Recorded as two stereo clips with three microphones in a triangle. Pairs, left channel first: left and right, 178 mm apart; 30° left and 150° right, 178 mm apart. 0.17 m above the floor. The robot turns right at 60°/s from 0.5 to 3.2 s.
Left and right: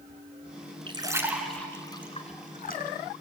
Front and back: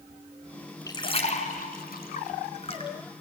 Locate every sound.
0.9 s a splash: 35° right, 1.9 m; by 2.9 s 85° left, 1.9 m